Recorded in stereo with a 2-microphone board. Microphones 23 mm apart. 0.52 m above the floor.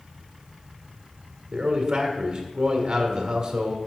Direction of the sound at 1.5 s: 30° right (ahead or behind).